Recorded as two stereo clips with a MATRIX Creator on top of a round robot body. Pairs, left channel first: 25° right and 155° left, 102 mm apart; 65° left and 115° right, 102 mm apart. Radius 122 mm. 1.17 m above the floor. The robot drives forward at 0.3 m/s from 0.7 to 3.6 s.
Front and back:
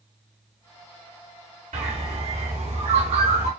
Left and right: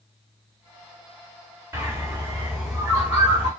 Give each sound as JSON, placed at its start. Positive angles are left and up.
{"t": 1.7, "sound": "a bird", "azimuth_deg": 175, "distance_m": 1.6}